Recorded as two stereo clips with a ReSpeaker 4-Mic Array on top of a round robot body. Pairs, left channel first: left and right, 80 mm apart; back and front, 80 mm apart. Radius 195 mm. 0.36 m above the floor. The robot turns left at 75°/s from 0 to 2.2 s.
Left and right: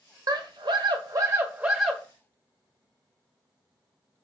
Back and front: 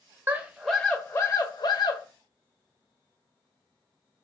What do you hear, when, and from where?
0.3 s a scream: 60° right, 1.5 m; by 2.0 s 170° left, 1.5 m